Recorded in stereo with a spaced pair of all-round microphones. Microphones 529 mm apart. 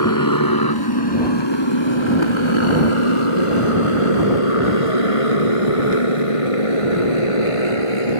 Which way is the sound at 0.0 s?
35° left (ahead or behind).